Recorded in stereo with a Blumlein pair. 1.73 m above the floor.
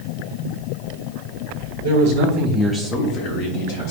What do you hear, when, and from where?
1.8 s a man speaking: 65° right, 0.9 m; by 3.9 s 60° left, 1.3 m